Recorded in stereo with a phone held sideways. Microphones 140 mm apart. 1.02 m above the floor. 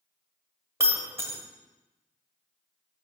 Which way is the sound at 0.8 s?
20° right (ahead or behind).